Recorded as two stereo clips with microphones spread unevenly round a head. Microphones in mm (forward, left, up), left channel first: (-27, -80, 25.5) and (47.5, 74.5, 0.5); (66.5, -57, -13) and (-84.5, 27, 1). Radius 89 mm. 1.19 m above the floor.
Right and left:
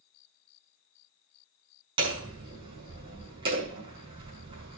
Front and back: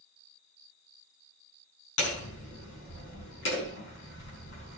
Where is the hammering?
Straight ahead, 6 m.